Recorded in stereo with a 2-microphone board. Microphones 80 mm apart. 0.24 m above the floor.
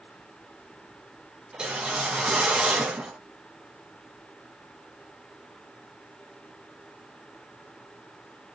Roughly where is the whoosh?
Centre.